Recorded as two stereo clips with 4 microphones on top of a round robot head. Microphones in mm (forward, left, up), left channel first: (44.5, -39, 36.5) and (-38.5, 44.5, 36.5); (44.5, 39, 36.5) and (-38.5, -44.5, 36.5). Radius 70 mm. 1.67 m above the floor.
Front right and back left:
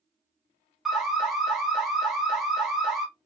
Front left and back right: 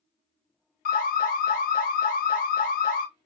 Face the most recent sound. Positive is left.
turn(degrees=45)